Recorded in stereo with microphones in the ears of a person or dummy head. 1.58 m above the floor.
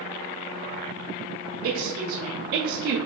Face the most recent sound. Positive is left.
turn(degrees=-55)  # may be behind; listen again after turning